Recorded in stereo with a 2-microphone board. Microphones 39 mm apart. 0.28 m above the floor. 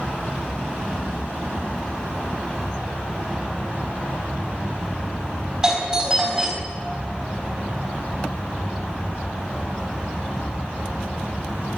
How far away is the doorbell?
About 3 m.